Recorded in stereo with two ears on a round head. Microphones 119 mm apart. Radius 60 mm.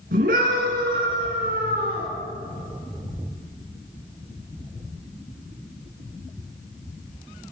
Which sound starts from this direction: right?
A scream, at 0.1 s.